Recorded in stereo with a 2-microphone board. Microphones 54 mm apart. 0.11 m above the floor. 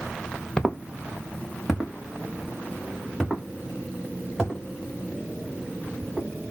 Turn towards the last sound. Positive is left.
turn(degrees=-10)  # may be behind; listen again after turning